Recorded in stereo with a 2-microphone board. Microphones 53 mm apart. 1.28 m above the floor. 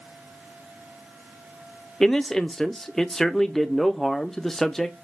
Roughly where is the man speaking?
Centre.